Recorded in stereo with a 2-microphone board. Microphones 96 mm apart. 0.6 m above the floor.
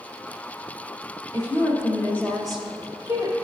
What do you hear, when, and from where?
1.3 s a woman speaking: 40° left (ahead or behind), 1.9 m; by 3.3 s 40° right (ahead or behind), 1.5 m